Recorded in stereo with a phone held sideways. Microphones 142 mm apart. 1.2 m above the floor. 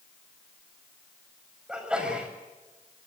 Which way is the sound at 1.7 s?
5° right (ahead or behind).